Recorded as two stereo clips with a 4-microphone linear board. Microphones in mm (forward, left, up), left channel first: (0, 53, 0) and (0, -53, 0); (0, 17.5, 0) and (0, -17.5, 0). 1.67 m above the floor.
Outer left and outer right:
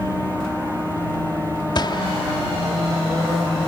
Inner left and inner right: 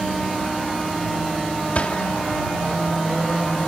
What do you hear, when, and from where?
1.8 s a gunshot: 45° left (ahead or behind)